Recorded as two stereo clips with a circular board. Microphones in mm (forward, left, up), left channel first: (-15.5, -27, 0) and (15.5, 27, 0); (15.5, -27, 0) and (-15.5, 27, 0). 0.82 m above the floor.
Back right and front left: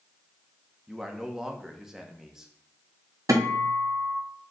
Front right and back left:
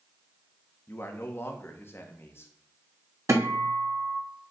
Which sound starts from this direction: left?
A guitar, at 3.3 s.